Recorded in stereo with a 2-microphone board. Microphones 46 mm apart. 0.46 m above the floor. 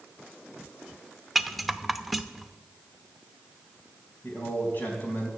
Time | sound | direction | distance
1.4 | a rattle | 5° right (ahead or behind) | 0.6 m
4.2 | a man speaking | 40° left (ahead or behind) | 3.5 m